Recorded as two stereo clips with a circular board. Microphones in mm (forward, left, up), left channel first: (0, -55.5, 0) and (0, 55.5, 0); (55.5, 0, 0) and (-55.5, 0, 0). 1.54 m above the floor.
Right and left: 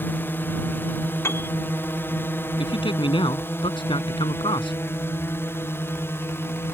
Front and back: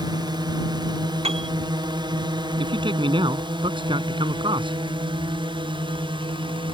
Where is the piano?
155° right.